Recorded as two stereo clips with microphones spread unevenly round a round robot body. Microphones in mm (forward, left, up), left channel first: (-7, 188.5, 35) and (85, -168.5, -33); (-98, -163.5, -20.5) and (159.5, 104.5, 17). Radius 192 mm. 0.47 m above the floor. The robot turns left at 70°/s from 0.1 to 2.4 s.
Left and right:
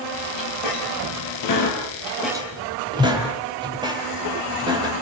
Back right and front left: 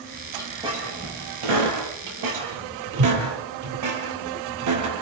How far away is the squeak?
About 6.5 m.